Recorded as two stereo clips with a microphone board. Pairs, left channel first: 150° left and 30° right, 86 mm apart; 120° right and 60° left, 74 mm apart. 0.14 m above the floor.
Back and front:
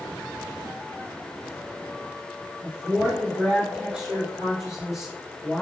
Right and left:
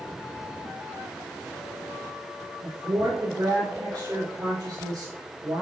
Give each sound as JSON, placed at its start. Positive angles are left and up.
{"t": 2.6, "sound": "a woman speaking", "azimuth_deg": 40, "distance_m": 3.5}